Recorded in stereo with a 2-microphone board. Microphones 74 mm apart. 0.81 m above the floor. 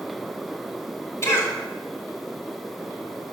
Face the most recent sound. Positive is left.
turn(degrees=35)  # may be behind; listen again after turning